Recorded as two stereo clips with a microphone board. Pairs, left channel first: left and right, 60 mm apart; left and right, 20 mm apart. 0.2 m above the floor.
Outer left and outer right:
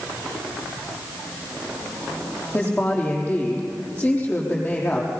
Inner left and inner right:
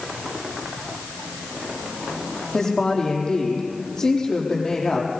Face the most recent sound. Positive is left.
turn(degrees=35)  # may be behind; listen again after turning